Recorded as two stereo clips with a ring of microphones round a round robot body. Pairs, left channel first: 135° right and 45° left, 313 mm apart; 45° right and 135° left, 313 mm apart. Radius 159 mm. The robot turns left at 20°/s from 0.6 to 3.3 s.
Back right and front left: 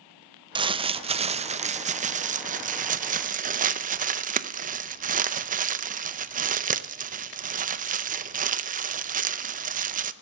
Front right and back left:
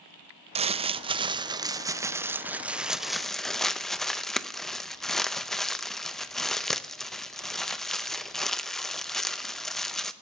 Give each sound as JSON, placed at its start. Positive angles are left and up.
{"t": 0.6, "sound": "crumpling", "azimuth_deg": 95, "distance_m": 0.5}